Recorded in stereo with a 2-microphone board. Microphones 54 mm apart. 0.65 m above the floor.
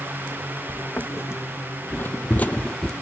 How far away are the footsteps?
About 1.6 m.